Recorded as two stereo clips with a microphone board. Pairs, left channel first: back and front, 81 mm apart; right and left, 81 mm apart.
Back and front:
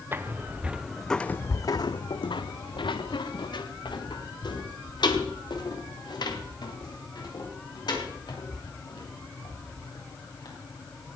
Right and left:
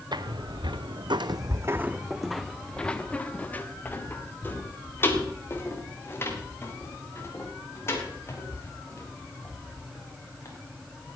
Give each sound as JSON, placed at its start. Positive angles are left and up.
{"t": 0.1, "sound": "footsteps", "azimuth_deg": 65, "distance_m": 1.0}